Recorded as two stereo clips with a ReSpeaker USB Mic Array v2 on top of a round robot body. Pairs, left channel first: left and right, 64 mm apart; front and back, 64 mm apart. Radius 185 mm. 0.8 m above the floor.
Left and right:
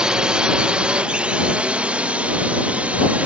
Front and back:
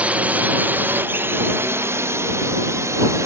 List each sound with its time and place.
0.0 s a drone: 145° right; by 3.3 s 155° right